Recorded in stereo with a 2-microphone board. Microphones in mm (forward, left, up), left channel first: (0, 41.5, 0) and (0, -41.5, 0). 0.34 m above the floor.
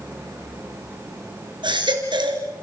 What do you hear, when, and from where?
1.6 s a baby crying: 75° right (ahead or behind), 3 m